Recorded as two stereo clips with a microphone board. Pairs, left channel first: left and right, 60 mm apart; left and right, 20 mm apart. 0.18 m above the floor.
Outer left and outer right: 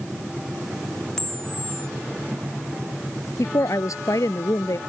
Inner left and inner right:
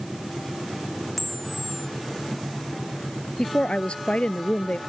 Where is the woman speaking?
65° left (ahead or behind).